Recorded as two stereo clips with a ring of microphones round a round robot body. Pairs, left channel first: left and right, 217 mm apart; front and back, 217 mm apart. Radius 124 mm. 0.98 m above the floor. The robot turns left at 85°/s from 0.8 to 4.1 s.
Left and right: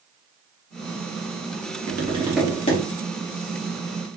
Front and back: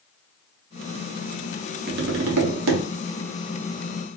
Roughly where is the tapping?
Behind right.